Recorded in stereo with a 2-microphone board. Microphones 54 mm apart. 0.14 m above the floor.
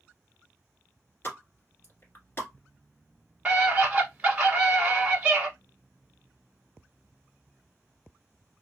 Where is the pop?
45° left (ahead or behind), 1.5 m.